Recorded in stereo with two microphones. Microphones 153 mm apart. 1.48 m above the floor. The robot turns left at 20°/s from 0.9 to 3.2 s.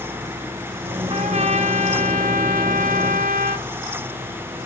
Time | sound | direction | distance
1.1 | a trumpet | 50° right | 0.9 m